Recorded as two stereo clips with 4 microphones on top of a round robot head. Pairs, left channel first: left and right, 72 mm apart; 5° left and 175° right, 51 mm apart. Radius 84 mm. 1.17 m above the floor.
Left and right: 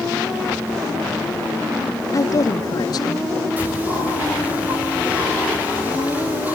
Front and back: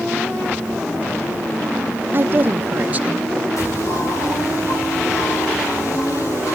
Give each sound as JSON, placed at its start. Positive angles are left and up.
{"t": 2.1, "sound": "a woman speaking", "azimuth_deg": 135, "distance_m": 1.5}
{"t": 3.6, "sound": "a bird", "azimuth_deg": -20, "distance_m": 7.5}